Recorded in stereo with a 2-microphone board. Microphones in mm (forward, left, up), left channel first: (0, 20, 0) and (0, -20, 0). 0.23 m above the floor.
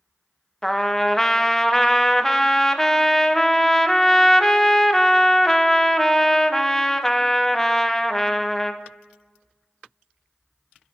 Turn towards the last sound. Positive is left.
turn(degrees=10)  # may be behind; listen again after turning